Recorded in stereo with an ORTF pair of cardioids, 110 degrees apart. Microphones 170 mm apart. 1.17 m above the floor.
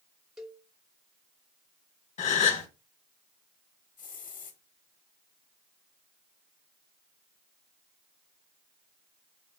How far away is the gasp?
About 1.0 m.